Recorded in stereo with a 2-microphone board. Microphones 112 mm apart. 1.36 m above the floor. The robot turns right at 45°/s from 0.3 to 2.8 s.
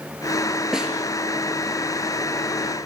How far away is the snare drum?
About 3.5 m.